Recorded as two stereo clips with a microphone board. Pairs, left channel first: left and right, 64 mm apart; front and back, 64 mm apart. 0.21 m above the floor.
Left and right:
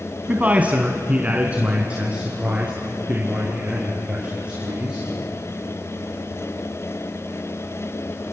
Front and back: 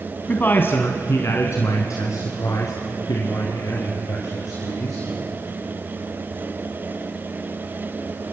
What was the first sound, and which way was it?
A man speaking, 45° right.